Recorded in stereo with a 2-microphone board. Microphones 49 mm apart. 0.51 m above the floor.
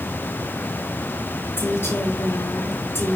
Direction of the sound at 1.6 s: 55° left (ahead or behind).